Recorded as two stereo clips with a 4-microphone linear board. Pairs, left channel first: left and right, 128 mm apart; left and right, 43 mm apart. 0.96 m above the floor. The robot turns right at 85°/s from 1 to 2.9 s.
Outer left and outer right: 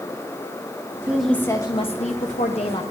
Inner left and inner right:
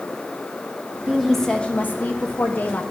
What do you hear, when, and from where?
1.1 s a woman speaking: 15° right, 0.9 m; by 2.8 s 135° left, 0.9 m